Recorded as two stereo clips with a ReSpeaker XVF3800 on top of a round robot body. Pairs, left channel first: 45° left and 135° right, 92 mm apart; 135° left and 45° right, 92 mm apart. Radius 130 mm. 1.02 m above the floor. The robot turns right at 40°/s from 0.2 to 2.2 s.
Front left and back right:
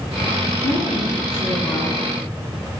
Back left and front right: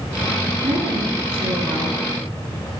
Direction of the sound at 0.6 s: 30° right.